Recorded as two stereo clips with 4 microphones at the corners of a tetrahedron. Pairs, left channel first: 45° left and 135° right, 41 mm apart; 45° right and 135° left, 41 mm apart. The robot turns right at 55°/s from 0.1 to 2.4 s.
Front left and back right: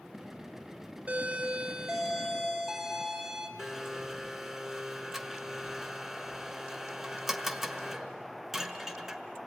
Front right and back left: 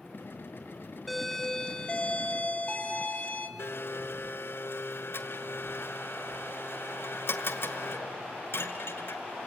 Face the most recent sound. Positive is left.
turn(degrees=-55)